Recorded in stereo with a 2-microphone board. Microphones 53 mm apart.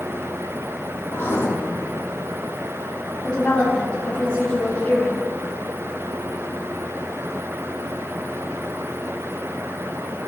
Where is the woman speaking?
20° left (ahead or behind), 1.8 m.